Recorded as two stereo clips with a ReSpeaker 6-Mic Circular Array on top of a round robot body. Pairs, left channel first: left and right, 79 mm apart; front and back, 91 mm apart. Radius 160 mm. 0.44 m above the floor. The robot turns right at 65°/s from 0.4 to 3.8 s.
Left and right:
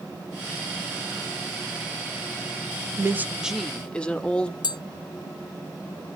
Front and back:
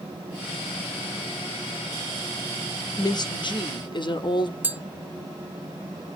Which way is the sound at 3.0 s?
40° right.